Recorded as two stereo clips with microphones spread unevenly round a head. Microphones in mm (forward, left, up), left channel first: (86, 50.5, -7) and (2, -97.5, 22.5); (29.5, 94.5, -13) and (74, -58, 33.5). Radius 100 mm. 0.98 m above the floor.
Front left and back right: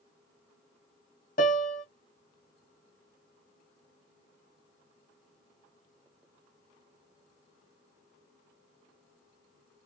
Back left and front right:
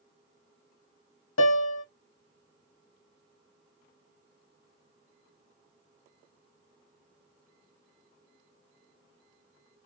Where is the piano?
115° left, 0.8 m.